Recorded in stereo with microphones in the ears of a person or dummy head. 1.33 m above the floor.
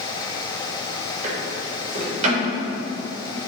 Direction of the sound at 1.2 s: 45° right (ahead or behind).